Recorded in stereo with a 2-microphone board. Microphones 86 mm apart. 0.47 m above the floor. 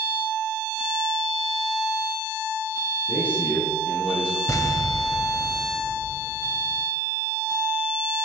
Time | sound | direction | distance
3.1 | a man speaking | 20° left (ahead or behind) | 6 m
4.5 | an explosion | 40° left (ahead or behind) | 0.8 m